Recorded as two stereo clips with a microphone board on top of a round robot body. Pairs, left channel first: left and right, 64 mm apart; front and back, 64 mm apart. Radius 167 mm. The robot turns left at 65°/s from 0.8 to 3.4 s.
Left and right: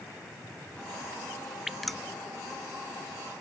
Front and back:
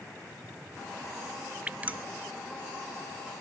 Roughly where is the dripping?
Behind.